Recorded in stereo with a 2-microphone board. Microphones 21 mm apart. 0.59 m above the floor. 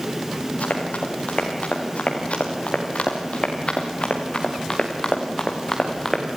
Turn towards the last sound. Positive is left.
turn(degrees=15)  # may be behind; listen again after turning